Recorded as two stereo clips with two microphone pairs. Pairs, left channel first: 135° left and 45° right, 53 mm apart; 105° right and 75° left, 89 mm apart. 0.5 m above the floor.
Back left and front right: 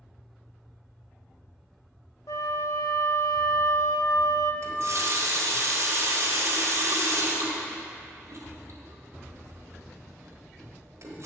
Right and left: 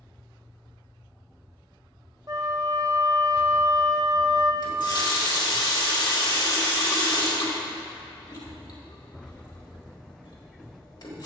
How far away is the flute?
About 0.6 m.